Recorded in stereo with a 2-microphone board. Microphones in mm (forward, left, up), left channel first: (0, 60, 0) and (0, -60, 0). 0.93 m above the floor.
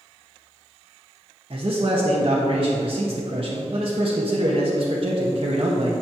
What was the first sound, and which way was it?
A man speaking, 50° right (ahead or behind).